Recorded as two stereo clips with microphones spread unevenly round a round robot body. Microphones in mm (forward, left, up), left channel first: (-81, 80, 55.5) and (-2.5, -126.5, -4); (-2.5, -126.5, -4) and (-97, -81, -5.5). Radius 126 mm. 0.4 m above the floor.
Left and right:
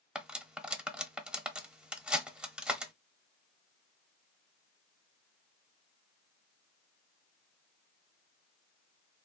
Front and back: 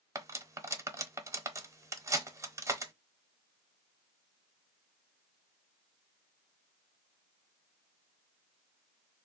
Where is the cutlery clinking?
145° right, 0.8 m.